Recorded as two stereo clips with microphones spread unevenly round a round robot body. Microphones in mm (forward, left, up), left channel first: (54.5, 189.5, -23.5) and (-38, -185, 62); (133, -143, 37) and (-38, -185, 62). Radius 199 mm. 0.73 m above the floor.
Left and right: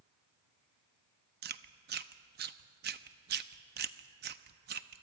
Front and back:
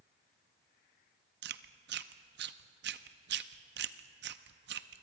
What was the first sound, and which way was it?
Chewing, 175° right.